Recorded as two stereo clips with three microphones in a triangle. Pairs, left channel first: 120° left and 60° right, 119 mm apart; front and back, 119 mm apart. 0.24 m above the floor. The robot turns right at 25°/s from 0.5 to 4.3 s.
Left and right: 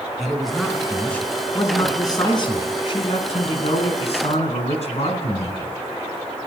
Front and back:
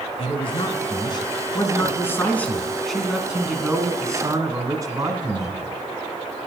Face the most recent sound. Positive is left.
turn(degrees=125)